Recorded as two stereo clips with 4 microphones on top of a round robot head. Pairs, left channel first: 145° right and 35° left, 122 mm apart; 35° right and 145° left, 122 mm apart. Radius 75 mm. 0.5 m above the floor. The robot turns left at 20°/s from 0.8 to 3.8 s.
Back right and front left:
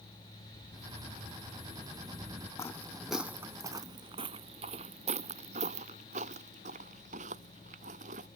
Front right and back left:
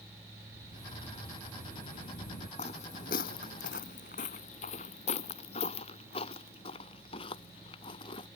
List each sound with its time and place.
0.5 s a sliding door: straight ahead; by 2.5 s 35° right
2.6 s footsteps: 75° right; by 8.3 s 15° left